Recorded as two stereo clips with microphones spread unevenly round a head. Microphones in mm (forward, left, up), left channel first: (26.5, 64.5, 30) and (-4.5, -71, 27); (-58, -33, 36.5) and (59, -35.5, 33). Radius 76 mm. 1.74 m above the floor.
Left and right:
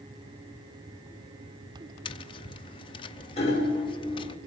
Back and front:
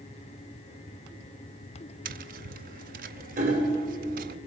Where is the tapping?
20° left, 0.7 m.